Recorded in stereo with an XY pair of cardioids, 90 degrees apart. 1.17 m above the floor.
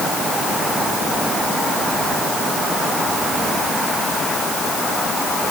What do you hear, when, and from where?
Only background noise.